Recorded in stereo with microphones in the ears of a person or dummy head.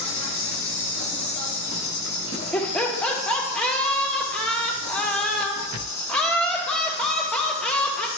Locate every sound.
0.0 s an insect: 30° left (ahead or behind), 1.4 m
2.5 s laughter: 5° left (ahead or behind), 1.6 m